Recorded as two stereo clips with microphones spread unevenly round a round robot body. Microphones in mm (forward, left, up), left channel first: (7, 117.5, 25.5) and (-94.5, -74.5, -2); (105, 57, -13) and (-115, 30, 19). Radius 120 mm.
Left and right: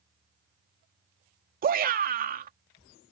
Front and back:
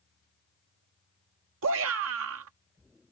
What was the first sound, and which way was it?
A shout, 150° right.